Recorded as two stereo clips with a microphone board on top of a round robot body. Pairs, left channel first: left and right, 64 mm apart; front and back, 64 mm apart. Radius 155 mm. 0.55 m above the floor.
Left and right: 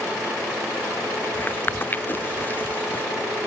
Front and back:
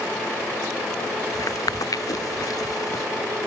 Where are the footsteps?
30° left.